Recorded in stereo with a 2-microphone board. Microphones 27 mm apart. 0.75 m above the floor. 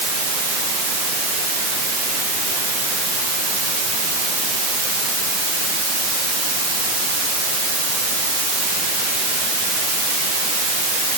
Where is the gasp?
I don't hear a gasp.